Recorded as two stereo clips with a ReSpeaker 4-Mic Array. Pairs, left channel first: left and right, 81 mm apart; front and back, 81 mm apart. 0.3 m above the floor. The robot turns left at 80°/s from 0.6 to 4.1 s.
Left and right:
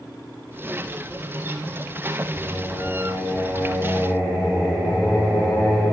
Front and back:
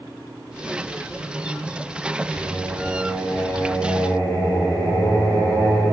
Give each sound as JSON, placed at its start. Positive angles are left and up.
{"t": 2.3, "sound": "singing", "azimuth_deg": 90, "distance_m": 1.7}